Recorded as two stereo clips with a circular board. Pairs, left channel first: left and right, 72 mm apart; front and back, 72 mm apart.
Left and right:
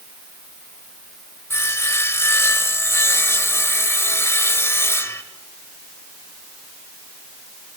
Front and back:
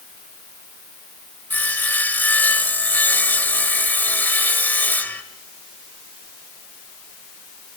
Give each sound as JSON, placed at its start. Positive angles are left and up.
{"t": 1.5, "sound": "sawing", "azimuth_deg": 55, "distance_m": 2.0}